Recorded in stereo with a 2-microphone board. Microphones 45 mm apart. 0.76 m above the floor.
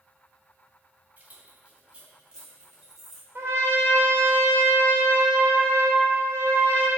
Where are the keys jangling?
40° right (ahead or behind), 2.5 m; by 3.2 s 10° right (ahead or behind), 3.5 m.